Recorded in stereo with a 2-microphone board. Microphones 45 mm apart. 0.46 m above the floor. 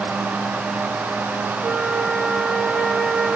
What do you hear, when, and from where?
1.6 s a flute: 20° right (ahead or behind), 2.5 m